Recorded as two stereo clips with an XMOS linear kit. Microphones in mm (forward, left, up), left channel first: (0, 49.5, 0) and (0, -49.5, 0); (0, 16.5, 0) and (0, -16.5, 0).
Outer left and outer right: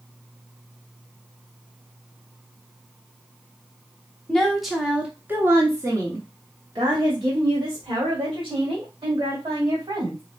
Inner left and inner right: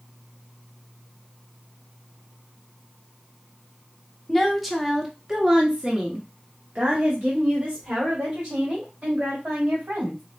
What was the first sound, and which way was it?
A woman speaking, 5° left (ahead or behind).